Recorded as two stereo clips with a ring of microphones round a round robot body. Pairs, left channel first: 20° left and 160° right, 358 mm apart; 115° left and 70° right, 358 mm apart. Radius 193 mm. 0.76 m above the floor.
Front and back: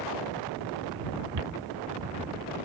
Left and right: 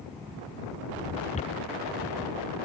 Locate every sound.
1.3 s footsteps: 175° right